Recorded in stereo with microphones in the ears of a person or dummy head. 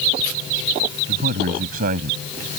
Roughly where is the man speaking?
Right.